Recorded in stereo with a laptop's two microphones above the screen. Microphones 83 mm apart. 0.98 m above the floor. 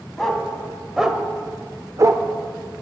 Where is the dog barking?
5° left (ahead or behind), 2.5 m; by 2.3 s 35° right (ahead or behind), 0.9 m.